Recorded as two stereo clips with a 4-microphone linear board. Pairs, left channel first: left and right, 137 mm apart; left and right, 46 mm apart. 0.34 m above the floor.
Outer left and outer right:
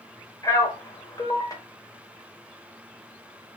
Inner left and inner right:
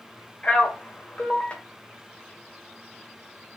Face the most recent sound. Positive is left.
turn(degrees=25)  # may be behind; listen again after turning